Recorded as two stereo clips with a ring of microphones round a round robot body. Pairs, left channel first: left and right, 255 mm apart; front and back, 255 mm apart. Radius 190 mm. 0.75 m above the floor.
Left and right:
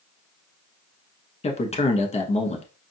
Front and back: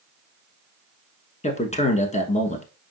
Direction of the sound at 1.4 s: 45° left.